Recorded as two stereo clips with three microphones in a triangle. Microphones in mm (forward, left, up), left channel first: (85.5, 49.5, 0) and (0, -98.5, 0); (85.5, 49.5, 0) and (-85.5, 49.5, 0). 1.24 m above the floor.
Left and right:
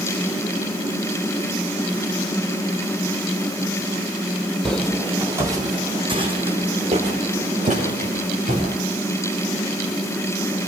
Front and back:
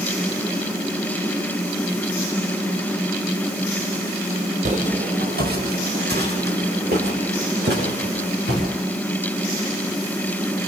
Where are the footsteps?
145° left, 2.5 m; by 8.6 s 160° right, 7 m.